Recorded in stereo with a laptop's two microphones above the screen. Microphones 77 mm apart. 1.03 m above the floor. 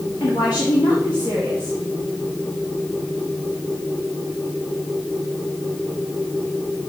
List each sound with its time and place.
0.2 s a woman speaking: 55° left (ahead or behind), 2.5 m